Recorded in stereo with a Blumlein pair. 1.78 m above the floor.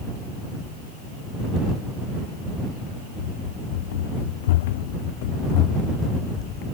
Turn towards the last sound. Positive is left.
turn(degrees=35)